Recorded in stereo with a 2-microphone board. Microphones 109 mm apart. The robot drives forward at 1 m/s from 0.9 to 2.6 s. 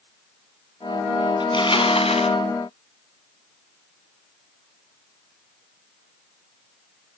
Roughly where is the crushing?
Left.